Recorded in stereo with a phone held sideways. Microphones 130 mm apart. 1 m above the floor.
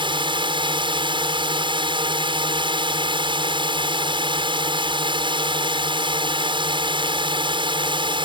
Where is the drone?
40° right (ahead or behind).